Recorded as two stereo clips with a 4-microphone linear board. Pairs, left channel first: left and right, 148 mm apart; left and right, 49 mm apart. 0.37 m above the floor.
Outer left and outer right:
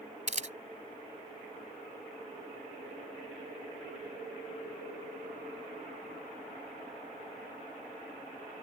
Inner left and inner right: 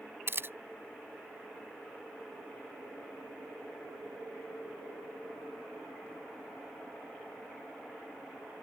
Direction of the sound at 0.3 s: 55° right (ahead or behind).